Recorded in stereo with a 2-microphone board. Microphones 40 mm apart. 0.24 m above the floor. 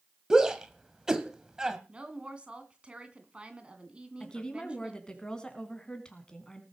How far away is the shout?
About 1.6 m.